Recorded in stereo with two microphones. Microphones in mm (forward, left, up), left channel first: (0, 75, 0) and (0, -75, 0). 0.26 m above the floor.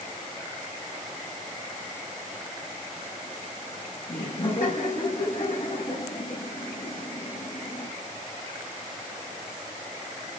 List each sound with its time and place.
4.1 s laughter: 70° left (ahead or behind), 6.5 m